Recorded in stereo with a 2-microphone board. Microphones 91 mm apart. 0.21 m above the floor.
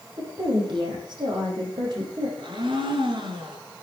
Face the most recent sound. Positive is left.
turn(degrees=-60)  # may be behind; listen again after turning